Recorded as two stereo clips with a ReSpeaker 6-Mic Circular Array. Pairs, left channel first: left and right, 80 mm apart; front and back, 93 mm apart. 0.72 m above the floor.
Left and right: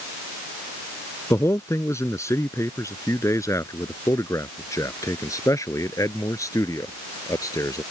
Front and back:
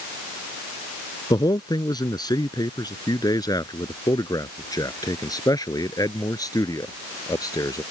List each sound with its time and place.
1.3 s a man speaking: 40° left; by 7.8 s 50° left